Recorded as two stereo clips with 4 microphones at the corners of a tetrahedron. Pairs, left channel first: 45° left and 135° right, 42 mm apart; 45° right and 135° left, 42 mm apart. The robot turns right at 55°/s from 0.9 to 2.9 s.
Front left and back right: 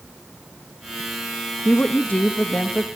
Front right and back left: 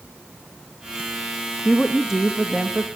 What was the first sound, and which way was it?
A woman speaking, 25° left.